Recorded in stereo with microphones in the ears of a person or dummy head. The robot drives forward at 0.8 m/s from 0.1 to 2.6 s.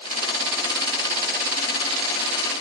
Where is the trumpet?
I don't hear a trumpet.